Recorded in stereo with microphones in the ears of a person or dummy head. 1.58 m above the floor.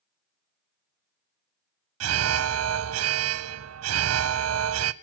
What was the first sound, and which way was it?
An alarm, 85° right.